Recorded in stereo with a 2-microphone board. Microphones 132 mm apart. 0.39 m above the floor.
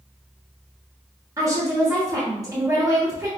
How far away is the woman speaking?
About 1.1 m.